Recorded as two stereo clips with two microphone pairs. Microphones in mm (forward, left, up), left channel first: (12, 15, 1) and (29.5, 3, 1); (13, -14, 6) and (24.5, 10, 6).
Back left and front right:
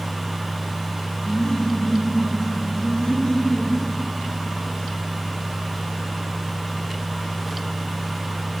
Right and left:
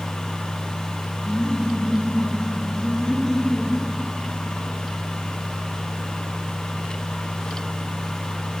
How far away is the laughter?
About 3.5 m.